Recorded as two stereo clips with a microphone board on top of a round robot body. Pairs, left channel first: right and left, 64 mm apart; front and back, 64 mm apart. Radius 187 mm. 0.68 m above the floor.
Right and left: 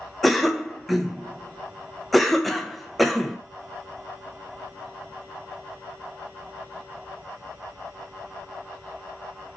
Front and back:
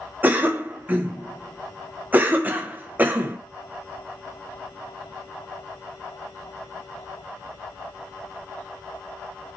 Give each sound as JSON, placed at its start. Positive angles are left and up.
{"t": 0.2, "sound": "a cough", "azimuth_deg": 180, "distance_m": 0.7}